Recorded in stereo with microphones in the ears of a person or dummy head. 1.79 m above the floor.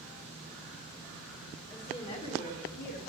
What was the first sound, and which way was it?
A woman speaking, 15° left (ahead or behind).